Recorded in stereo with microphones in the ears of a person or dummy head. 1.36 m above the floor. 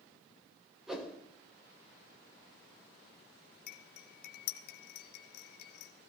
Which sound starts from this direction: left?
Cutlery clinking, at 3.7 s.